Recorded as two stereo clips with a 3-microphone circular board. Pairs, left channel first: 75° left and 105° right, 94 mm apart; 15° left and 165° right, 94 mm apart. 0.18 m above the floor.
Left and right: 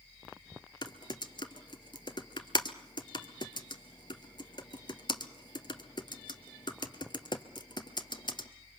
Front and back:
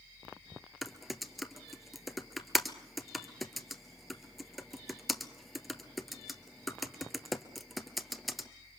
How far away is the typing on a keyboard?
About 1.3 m.